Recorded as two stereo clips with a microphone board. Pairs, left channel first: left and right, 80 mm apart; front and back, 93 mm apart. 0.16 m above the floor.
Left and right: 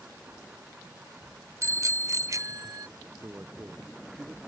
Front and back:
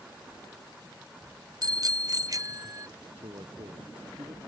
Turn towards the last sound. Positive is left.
turn(degrees=-150)